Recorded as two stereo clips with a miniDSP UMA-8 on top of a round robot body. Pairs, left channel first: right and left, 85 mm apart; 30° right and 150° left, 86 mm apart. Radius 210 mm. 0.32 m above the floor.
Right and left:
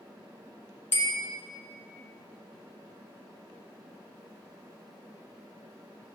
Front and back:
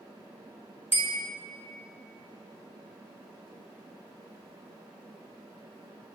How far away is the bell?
About 1.1 m.